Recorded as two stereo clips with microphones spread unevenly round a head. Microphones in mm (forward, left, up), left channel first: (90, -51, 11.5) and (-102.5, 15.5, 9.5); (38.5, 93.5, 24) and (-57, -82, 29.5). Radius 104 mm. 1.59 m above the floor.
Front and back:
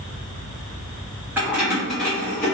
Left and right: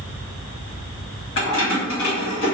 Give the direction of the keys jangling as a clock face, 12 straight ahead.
9 o'clock.